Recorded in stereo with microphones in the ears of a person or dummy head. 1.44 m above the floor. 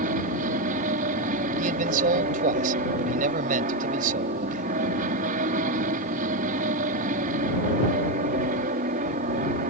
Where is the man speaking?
45° right (ahead or behind).